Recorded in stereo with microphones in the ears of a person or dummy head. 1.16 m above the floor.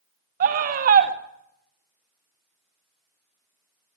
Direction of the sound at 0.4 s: 45° right (ahead or behind).